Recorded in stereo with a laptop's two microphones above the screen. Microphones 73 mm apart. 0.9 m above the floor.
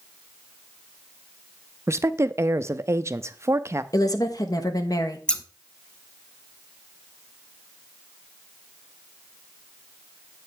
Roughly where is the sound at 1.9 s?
Right.